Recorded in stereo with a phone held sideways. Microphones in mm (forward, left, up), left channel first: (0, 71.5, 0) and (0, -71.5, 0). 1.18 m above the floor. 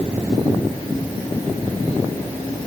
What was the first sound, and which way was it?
Only background noise.